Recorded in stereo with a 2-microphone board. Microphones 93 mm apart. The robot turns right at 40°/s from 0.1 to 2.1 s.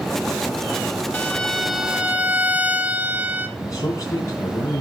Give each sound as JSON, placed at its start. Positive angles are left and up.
{"t": 1.1, "sound": "a violin", "azimuth_deg": 160, "distance_m": 0.8}
{"t": 3.6, "sound": "a man speaking", "side_deg": 40, "distance_m": 3.5}